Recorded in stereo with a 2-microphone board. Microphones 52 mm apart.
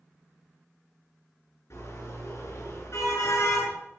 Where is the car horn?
55° left (ahead or behind), 9 m; by 3.7 s 60° left (ahead or behind), 8.5 m.